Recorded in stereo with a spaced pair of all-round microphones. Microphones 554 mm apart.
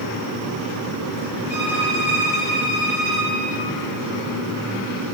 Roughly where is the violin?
Left.